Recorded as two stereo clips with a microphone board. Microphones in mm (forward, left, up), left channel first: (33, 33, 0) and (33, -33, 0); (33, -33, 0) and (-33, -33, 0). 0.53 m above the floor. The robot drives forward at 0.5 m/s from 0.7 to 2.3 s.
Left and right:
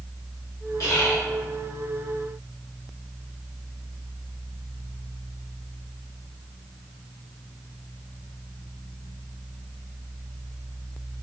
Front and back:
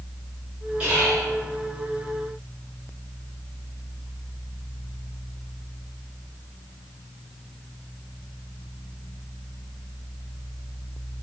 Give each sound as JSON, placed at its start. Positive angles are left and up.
{"t": 0.8, "sound": "whispering", "azimuth_deg": 115, "distance_m": 1.8}